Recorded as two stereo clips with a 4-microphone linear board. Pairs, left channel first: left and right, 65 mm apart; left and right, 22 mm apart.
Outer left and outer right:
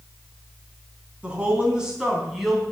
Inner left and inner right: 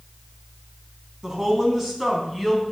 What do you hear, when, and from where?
1.2 s a woman speaking: 20° right (ahead or behind), 4.5 m; by 2.6 s centre (ahead or behind), 4 m